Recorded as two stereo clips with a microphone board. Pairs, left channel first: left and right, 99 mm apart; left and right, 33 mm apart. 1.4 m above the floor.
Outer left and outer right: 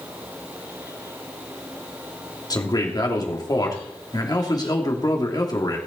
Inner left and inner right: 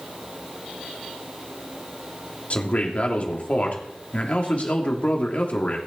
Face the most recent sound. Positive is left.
turn(degrees=40)  # may be behind; listen again after turning